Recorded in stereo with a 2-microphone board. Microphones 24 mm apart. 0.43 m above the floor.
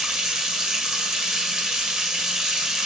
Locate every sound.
0.0 s running water: 25° right (ahead or behind), 0.9 m